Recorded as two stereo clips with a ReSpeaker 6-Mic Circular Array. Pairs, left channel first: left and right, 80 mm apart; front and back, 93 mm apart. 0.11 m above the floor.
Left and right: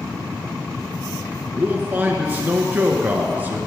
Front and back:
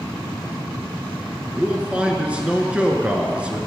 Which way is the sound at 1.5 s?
120° right.